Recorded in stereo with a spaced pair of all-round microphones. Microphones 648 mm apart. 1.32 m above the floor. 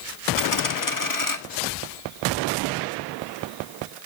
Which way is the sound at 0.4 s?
30° left (ahead or behind).